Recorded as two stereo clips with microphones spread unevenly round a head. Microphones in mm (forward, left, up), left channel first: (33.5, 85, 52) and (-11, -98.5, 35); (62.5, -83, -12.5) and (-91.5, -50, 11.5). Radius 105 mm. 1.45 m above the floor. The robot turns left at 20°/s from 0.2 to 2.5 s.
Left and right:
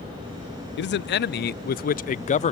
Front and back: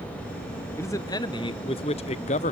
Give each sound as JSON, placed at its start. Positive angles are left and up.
{"t": 0.8, "sound": "a man speaking", "azimuth_deg": 55, "distance_m": 0.5}